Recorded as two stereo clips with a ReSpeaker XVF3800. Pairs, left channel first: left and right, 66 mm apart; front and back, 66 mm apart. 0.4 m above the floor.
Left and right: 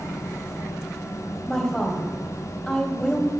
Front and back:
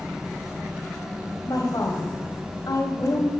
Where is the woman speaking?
15° left, 1.8 m.